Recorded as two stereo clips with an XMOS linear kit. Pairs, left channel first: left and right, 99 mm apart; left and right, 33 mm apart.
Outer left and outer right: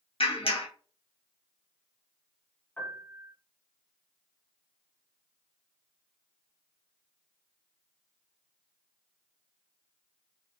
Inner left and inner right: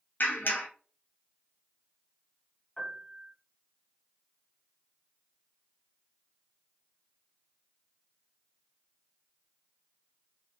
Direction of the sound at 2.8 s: 15° left (ahead or behind).